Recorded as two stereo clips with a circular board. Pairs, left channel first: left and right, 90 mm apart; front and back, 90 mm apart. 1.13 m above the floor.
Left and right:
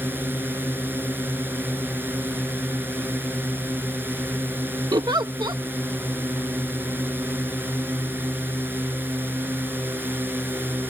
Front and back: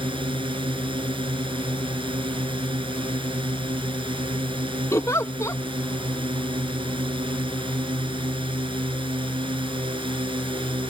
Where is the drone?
160° right.